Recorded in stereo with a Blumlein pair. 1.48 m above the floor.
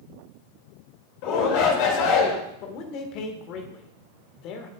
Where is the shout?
45° left, 3 m.